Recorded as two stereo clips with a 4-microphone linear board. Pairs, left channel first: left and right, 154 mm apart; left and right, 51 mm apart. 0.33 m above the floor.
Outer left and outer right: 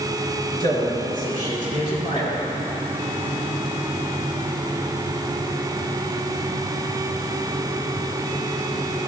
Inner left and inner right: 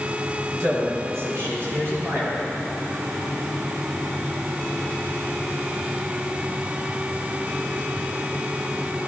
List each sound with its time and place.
0.6 s a man speaking: 65° right (ahead or behind), 3.5 m; by 2.4 s 50° right (ahead or behind), 5 m